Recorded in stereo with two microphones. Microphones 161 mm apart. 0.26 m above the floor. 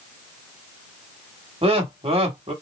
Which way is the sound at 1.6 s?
40° right (ahead or behind).